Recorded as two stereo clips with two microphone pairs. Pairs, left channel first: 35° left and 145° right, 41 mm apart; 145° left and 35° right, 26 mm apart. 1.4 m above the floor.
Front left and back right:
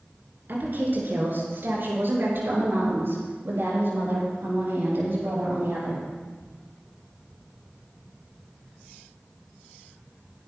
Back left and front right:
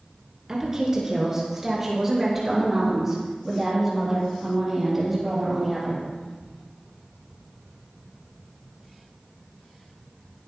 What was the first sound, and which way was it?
A woman speaking, 110° right.